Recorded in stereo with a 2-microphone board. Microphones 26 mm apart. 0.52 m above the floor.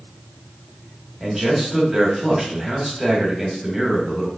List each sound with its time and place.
1.2 s a man speaking: 5° right (ahead or behind), 1.5 m